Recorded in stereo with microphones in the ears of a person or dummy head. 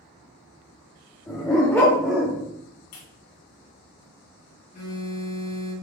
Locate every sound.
1.3 s a dog barking: 20° left (ahead or behind), 1.1 m; by 2.5 s 10° right (ahead or behind), 1.0 m
2.9 s a clap: 80° left, 1.9 m
4.7 s a phone buzzing: 70° left (ahead or behind), 2.5 m